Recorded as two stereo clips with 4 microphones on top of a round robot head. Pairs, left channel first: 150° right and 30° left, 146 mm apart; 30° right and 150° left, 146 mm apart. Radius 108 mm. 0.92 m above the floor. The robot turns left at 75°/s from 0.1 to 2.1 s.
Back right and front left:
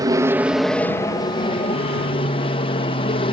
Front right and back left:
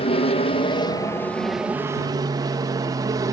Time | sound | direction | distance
0.0 | an aircraft | 20° right | ?